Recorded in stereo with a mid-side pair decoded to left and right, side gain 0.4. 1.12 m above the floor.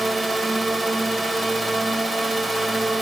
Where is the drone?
15° right.